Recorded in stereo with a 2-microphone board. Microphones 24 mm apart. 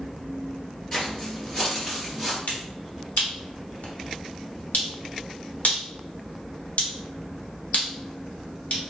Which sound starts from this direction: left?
A finger snap, at 2.5 s.